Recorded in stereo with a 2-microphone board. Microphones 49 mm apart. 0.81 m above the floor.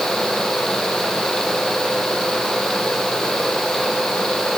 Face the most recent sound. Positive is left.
No sound to turn to.